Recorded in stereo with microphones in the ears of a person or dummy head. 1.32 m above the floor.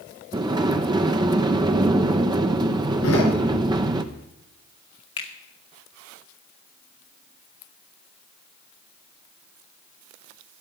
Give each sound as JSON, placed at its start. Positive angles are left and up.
{"t": 0.3, "sound": "a sliding door", "side_deg": -20, "distance_m": 0.6}
{"t": 3.0, "sound": "a door slam", "side_deg": 85, "distance_m": 3.5}
{"t": 5.2, "sound": "a finger snap", "side_deg": 35, "distance_m": 1.6}